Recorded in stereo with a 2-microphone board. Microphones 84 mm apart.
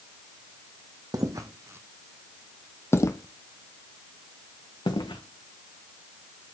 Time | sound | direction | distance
1.1 | footsteps | 50° right (ahead or behind) | 1.1 m